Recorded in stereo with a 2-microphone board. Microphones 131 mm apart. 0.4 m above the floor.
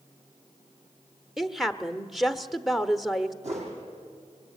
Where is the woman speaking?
Centre (ahead or behind), 1.1 m.